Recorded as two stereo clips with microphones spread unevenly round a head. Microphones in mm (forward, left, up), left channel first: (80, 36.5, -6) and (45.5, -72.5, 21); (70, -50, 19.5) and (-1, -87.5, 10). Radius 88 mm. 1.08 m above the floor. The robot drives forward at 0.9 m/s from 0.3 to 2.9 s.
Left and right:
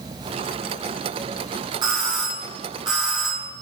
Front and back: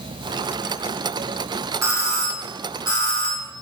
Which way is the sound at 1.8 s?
170° right.